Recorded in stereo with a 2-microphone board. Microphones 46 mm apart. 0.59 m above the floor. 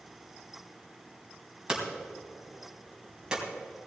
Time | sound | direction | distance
1.7 | hammering | 20° right (ahead or behind) | 3 m